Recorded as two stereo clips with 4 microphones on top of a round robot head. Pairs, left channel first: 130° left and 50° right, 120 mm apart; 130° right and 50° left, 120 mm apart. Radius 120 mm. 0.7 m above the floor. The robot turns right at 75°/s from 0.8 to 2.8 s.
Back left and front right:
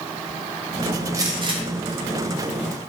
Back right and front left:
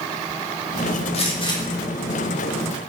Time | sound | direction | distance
1.1 | a gunshot | 110° right | 1.6 m